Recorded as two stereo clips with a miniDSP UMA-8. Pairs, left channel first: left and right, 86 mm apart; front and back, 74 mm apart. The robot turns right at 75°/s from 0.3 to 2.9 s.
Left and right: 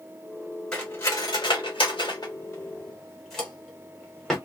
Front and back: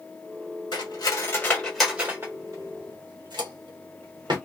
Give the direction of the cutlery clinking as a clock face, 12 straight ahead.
12 o'clock.